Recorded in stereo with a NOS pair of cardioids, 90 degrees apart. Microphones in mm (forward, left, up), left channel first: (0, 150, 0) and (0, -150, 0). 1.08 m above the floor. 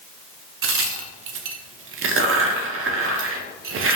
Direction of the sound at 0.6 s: 45° right.